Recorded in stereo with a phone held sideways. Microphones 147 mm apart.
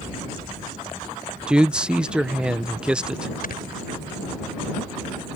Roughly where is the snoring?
Left.